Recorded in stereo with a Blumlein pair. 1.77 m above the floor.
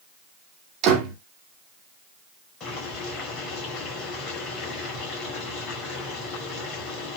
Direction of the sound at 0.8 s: 35° right.